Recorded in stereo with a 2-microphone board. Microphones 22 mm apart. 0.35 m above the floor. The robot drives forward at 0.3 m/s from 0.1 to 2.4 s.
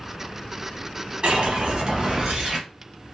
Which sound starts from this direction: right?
A whoosh, at 1.2 s.